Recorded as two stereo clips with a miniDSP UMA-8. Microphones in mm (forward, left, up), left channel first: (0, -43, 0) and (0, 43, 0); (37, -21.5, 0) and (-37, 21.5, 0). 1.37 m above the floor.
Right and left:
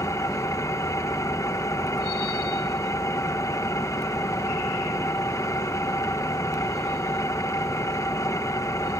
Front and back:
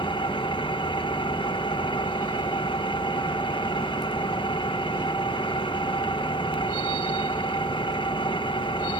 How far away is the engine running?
About 1.1 m.